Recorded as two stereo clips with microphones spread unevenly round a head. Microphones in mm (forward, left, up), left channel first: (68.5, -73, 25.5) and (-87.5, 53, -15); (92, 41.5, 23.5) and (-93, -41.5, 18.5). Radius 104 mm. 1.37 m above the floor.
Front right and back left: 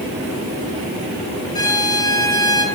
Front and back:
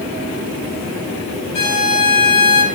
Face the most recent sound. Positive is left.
turn(degrees=35)